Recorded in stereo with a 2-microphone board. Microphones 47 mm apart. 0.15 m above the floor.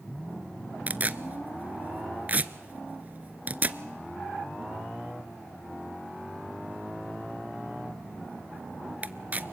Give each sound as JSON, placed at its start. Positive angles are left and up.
{"t": 0.9, "sound": "tearing paper", "side_deg": -35, "distance_m": 0.5}